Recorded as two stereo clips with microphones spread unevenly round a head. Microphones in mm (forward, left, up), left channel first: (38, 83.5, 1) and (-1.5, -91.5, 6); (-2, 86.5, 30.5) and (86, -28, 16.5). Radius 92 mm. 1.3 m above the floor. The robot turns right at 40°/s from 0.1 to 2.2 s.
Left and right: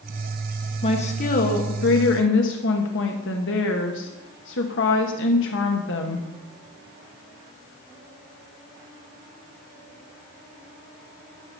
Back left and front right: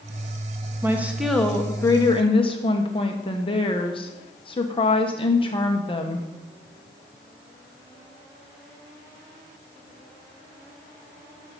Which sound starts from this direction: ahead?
A woman speaking, at 0.8 s.